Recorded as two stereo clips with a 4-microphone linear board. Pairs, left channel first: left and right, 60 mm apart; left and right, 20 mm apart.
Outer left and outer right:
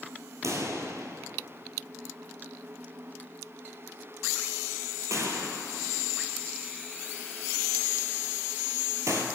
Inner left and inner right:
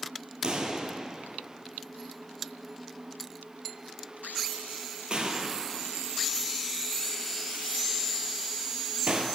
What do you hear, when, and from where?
0.4 s a pop: 60° right (ahead or behind), 0.7 m